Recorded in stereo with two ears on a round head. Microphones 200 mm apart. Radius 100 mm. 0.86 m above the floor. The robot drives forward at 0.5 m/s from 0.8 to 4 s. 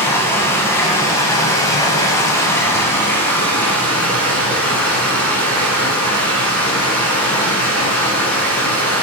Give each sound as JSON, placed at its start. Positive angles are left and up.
{"t": 0.0, "sound": "running water", "side_deg": 10, "distance_m": 0.8}